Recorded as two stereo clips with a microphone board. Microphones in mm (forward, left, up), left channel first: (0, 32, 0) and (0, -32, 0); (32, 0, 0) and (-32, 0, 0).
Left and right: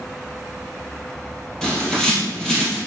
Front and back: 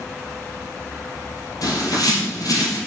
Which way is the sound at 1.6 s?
10° left.